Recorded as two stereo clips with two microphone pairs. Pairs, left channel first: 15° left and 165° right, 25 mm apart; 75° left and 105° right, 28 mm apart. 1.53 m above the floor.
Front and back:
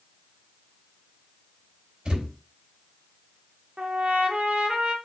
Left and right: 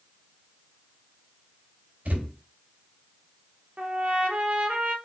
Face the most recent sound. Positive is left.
turn(degrees=-135)